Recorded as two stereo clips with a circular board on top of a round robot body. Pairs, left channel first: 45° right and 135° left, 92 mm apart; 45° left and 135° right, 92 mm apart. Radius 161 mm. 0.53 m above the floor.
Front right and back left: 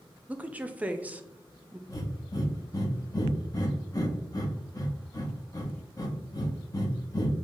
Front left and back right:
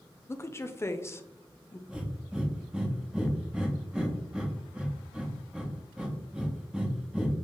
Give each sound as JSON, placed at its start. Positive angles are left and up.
{"t": 0.3, "sound": "a woman speaking", "azimuth_deg": 75, "distance_m": 0.7}
{"t": 1.9, "sound": "breathing", "azimuth_deg": -60, "distance_m": 1.1}